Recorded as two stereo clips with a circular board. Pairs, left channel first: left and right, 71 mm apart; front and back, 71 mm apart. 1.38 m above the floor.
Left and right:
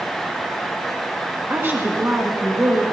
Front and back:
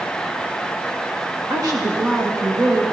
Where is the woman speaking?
150° right, 1.5 m.